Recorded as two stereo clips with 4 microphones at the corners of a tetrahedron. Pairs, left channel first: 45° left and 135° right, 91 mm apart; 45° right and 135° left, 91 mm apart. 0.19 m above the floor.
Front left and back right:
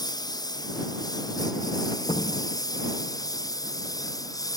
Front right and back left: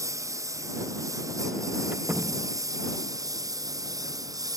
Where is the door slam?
65° left.